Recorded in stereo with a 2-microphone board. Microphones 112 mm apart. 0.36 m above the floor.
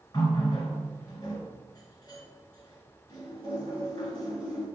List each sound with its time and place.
0.1 s a running tap: 35° left (ahead or behind), 1.5 m